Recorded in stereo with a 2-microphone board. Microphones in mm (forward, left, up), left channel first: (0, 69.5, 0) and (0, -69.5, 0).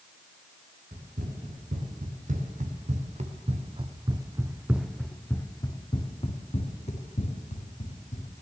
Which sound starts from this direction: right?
Running footsteps, at 0.9 s.